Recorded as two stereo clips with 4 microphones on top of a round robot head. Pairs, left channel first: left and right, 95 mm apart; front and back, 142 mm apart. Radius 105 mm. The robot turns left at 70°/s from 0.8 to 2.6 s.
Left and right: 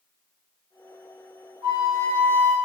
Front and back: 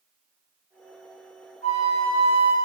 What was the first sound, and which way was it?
A flute, 45° right.